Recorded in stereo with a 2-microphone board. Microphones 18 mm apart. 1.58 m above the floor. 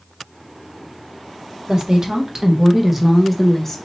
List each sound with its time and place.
1.7 s a woman speaking: 40° right (ahead or behind), 1.2 m; by 3.8 s 25° left (ahead or behind), 0.9 m